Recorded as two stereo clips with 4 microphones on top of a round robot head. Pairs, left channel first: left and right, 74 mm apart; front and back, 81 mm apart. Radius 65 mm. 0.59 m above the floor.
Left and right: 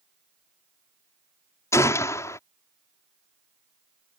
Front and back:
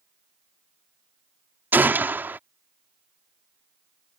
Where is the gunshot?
125° left.